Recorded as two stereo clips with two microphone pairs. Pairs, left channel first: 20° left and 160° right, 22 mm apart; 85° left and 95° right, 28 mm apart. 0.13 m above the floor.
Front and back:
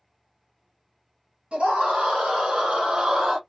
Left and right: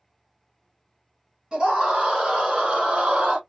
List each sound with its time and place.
1.5 s a scream: 145° right, 1.9 m; by 3.4 s 90° right, 1.4 m